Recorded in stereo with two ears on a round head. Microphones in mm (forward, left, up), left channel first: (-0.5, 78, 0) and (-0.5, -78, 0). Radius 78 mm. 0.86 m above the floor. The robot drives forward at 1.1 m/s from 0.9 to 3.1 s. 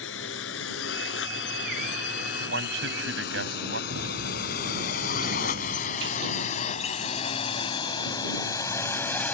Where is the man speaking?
80° right; by 3.8 s 85° right.